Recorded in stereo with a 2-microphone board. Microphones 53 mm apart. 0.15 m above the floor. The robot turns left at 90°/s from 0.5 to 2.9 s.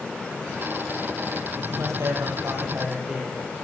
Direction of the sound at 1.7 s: 55° right.